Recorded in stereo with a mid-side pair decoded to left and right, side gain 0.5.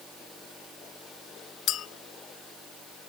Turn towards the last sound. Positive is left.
turn(degrees=65)